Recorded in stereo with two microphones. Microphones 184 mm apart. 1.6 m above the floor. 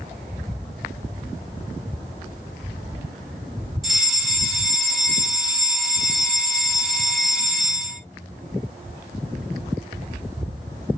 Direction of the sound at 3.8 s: Centre (ahead or behind).